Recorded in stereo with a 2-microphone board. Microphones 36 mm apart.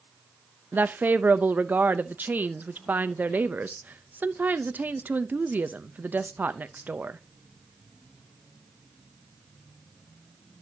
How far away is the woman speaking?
About 0.6 m.